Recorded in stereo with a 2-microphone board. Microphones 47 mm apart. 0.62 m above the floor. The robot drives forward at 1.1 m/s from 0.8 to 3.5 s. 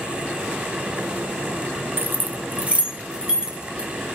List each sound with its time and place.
2.0 s keys jangling: 50° right (ahead or behind), 0.9 m; by 3.9 s 15° right (ahead or behind), 2.5 m